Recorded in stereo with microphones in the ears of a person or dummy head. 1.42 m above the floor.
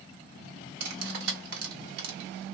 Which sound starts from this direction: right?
Cutlery clinking, at 0.8 s.